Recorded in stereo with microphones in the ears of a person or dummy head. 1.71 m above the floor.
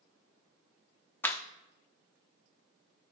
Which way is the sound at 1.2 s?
10° left (ahead or behind).